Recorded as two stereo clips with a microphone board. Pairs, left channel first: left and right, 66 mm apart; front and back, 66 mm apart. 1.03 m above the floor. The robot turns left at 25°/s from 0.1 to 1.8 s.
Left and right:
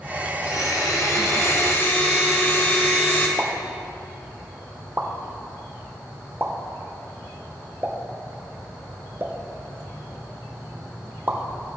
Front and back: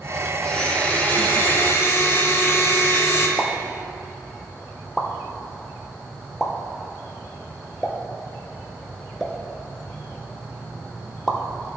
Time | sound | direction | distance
0.4 | a blender | 75° left | 0.9 m
3.4 | a pop | 80° right | 0.7 m